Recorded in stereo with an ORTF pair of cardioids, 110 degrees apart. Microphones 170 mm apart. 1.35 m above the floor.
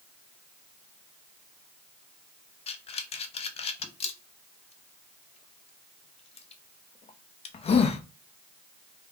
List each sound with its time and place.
2.7 s breathing: 35° left, 0.6 m